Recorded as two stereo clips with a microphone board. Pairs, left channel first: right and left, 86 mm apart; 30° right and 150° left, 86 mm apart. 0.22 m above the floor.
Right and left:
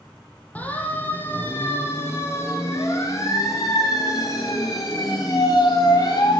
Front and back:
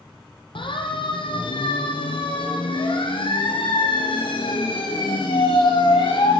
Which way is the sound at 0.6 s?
15° right.